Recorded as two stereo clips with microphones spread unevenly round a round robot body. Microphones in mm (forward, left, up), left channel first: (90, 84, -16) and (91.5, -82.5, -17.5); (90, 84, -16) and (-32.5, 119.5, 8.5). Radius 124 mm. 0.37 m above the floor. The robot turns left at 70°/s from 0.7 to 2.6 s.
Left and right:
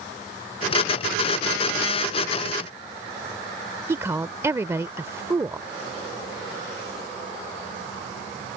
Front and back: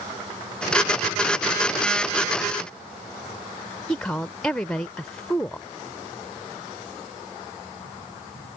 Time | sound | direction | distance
3.9 | a woman speaking | 60° right | ?